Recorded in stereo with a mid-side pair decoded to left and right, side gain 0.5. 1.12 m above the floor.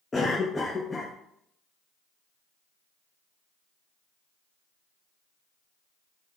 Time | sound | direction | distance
0.1 | a cough | 25° left | 0.6 m